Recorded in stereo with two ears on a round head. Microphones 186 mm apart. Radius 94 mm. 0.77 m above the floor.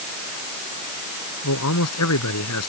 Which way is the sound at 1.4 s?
75° left (ahead or behind).